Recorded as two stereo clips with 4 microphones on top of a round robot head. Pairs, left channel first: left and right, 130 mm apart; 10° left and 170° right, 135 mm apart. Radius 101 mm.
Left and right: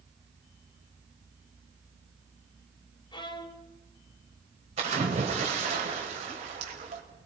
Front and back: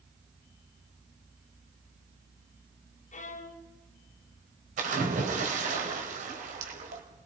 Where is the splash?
135° right, 3.5 m.